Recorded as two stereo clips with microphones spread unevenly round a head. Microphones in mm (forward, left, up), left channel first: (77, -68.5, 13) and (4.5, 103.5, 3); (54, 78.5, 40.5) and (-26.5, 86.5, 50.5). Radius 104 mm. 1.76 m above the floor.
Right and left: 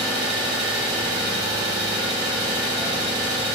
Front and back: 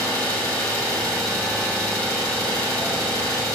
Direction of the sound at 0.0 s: 50° left.